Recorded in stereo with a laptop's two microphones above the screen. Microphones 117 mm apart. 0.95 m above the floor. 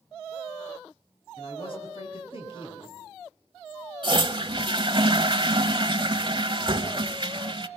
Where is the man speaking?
50° left (ahead or behind), 7.5 m.